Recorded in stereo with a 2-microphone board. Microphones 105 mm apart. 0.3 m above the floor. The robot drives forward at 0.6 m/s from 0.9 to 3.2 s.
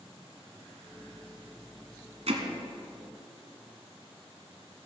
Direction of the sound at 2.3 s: 75° right (ahead or behind).